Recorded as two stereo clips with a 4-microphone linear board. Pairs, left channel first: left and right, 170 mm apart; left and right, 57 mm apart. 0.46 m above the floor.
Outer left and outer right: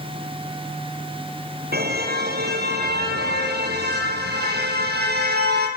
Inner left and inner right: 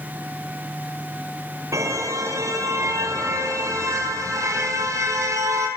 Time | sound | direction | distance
1.7 | a car horn | 70° right (ahead or behind) | 5.5 m